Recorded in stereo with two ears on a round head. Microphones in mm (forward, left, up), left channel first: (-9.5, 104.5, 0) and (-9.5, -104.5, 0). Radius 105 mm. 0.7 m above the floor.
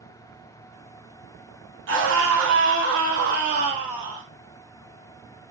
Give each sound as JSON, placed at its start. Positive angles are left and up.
{"t": 1.9, "sound": "a scream", "side_deg": -55, "distance_m": 1.7}